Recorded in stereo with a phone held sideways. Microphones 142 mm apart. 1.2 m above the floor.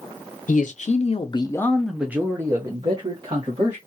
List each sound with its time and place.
0.5 s a man speaking: 65° left (ahead or behind), 0.7 m; by 3.8 s 40° right (ahead or behind), 1.3 m